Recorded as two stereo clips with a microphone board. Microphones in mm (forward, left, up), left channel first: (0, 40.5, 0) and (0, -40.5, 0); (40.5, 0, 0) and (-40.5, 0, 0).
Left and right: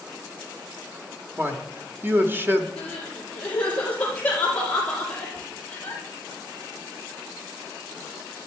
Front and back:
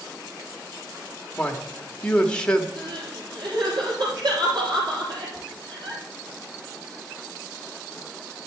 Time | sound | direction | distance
1.4 | a man speaking | 65° right | 1.0 m
2.8 | crying | 160° left | 4 m